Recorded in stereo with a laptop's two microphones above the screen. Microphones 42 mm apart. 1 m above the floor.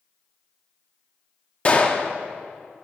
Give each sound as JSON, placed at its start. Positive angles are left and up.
{"t": 1.6, "sound": "a gunshot", "side_deg": 30, "distance_m": 0.6}